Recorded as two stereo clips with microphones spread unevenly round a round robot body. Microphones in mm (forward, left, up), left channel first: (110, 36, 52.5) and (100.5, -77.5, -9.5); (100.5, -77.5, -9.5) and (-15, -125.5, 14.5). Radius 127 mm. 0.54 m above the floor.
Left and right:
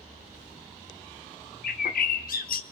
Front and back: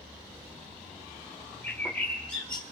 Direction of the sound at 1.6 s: 100° left.